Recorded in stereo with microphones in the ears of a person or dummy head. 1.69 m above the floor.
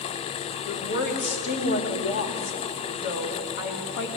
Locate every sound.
0.7 s a woman speaking: 55° left (ahead or behind), 2 m